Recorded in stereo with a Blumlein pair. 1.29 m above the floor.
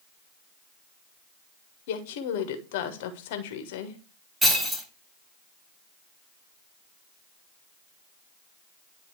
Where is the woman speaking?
50° left, 1.3 m.